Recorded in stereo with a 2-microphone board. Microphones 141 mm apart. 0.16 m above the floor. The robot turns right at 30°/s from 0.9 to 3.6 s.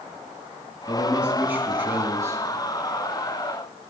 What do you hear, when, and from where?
0.9 s a man speaking: 5° right (ahead or behind), 1.6 m; by 2.4 s 20° right (ahead or behind), 1.6 m